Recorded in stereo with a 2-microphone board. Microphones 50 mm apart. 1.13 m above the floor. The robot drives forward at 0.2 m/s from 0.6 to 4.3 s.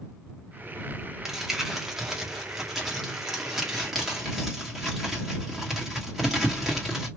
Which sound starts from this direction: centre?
Crumpling, at 1.2 s.